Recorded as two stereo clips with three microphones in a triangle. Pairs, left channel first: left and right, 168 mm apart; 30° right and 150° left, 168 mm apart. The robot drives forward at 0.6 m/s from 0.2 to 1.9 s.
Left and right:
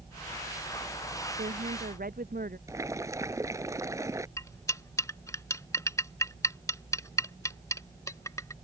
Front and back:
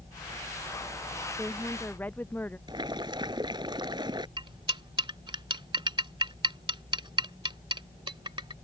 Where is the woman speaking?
105° right; by 2.6 s 110° right.